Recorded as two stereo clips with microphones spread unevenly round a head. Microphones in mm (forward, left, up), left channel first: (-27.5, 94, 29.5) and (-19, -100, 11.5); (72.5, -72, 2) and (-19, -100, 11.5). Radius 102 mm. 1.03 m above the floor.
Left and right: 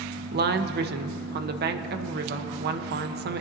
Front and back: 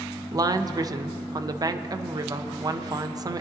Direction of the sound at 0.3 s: 110° right.